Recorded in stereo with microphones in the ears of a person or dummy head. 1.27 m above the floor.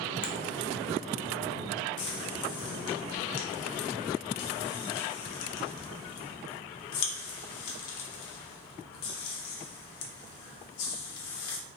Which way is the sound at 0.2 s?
30° left (ahead or behind).